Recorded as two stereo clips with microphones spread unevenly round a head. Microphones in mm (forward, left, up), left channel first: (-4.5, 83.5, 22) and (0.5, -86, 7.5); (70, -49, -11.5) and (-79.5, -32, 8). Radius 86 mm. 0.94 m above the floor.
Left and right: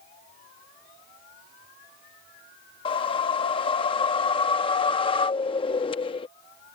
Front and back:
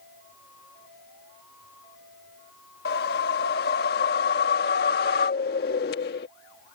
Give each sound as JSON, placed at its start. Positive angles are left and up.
{"t": 2.9, "sound": "a whoosh", "azimuth_deg": 30}